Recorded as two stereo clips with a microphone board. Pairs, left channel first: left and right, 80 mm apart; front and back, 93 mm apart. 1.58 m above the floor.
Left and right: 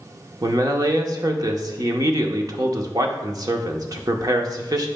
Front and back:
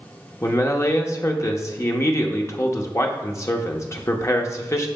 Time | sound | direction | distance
0.4 | a man speaking | 55° right | 0.9 m